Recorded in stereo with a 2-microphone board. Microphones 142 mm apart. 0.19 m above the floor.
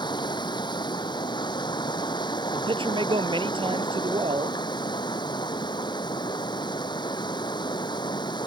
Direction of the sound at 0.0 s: 30° left (ahead or behind).